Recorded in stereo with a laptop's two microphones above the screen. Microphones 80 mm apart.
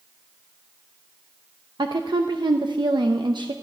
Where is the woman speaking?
75° right (ahead or behind), 0.8 m.